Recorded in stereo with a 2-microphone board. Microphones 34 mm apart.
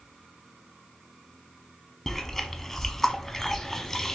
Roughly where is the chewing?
Centre.